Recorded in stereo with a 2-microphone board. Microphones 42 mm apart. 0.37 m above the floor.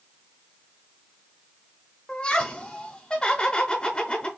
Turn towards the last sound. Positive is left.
turn(degrees=25)  # may be behind; listen again after turning